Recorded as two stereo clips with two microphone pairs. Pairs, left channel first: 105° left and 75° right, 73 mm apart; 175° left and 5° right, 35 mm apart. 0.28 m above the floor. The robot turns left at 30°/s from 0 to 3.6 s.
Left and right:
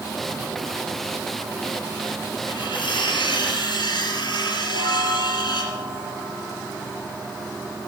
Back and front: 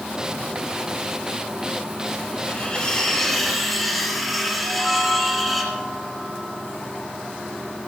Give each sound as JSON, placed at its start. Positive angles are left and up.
{"t": 2.5, "sound": "cutlery clinking", "azimuth_deg": 120, "distance_m": 3.5}
{"t": 4.6, "sound": "a chime", "azimuth_deg": 95, "distance_m": 4.0}